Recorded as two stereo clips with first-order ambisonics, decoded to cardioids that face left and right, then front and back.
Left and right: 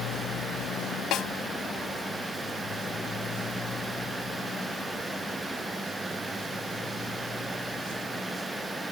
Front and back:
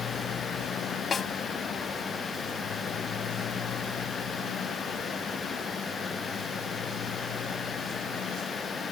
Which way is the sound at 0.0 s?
50° left.